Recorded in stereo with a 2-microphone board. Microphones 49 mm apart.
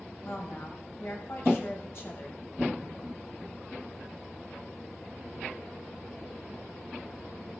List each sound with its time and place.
0.2 s a woman speaking: 55° left (ahead or behind), 5 m